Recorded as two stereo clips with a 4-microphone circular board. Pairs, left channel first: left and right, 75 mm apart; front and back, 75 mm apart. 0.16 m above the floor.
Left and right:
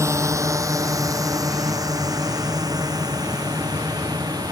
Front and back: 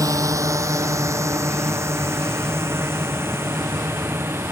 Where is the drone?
140° right; by 4.5 s 120° right.